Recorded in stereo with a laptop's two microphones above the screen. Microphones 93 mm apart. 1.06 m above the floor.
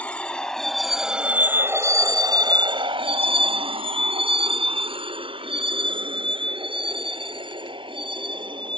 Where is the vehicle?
15° left (ahead or behind); by 8.8 s 60° right (ahead or behind).